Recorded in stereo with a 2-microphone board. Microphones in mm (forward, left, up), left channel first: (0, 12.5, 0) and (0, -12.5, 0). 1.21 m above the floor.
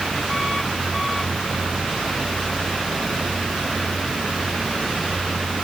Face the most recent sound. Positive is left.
No sound to turn to.